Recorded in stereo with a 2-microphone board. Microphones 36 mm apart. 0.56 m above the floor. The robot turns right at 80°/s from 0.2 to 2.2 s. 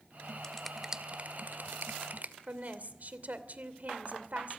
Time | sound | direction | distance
0.4 | a finger snap | 20° left (ahead or behind) | 1.6 m
2.5 | a woman speaking | 50° right (ahead or behind) | 2.5 m